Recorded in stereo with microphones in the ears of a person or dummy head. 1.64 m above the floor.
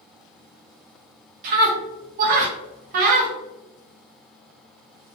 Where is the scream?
40° right (ahead or behind), 0.5 m.